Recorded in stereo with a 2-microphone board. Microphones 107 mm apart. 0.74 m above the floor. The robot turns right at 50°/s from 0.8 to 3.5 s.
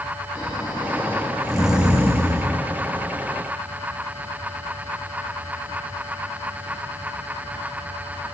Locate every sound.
0.3 s snoring: 140° left, 2.0 m; by 2.5 s 135° right, 2.0 m